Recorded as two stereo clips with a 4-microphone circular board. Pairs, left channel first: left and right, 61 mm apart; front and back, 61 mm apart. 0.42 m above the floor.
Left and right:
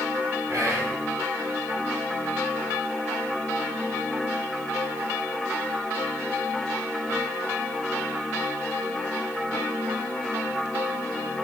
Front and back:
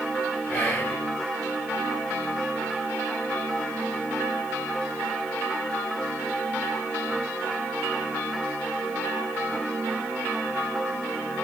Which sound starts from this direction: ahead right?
Whispering, at 0.5 s.